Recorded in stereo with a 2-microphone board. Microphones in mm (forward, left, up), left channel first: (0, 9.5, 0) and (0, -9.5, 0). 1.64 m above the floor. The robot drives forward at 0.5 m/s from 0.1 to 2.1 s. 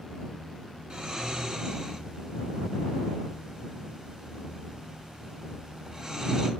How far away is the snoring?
About 2 m.